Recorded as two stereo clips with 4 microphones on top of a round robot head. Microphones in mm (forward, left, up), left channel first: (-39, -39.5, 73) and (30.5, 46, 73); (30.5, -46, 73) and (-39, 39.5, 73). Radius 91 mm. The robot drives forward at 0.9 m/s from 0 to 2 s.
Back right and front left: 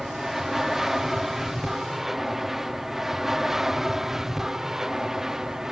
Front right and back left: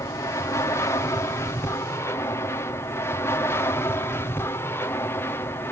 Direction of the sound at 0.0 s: 35° right.